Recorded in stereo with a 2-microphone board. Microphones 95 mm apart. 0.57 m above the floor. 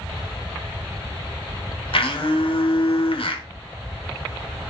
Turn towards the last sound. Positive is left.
turn(degrees=65)  # may be behind; listen again after turning